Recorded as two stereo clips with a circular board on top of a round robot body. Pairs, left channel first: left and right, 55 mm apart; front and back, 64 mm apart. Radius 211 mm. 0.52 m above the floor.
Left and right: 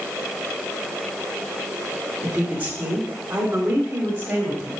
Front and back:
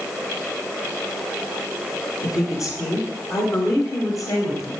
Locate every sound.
2.2 s a woman speaking: 25° right, 3 m; by 4.7 s 30° right, 4 m